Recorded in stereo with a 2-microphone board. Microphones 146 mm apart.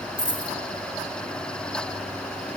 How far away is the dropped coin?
About 1.7 m.